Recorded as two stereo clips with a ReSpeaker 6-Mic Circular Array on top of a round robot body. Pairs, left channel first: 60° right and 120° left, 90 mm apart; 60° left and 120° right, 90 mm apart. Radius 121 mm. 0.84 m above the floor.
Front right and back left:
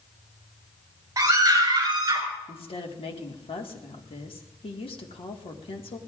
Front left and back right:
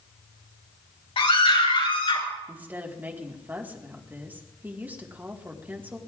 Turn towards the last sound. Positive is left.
turn(degrees=-50)